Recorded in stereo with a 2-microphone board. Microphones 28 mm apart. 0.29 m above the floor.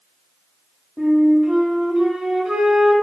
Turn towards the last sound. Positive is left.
turn(degrees=-25)  # may be behind; listen again after turning